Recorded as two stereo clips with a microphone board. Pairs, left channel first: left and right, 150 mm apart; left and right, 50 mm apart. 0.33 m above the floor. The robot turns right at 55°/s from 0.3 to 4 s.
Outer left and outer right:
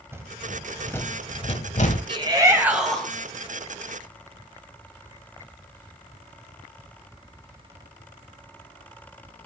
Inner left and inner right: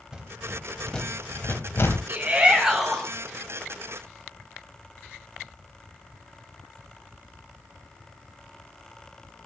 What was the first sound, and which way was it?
A rattle, 15° right (ahead or behind).